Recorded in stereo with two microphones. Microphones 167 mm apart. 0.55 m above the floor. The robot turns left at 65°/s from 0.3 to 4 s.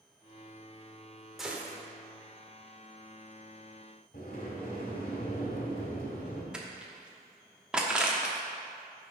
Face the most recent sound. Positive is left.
turn(degrees=-5)  # may be behind; listen again after turning